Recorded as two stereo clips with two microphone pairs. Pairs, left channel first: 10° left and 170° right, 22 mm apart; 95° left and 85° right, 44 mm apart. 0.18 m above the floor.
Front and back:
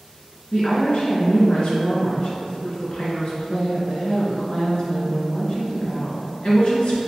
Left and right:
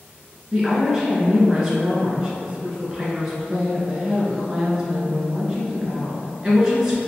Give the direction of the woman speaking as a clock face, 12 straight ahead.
1 o'clock.